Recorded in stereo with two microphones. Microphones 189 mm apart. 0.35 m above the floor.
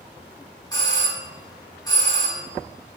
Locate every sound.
0.7 s a doorbell: 20° left (ahead or behind), 1.5 m